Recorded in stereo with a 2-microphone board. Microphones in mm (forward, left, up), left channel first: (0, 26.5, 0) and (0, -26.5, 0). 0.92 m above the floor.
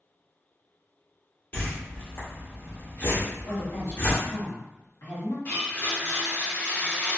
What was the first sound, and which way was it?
A whoosh, 40° left (ahead or behind).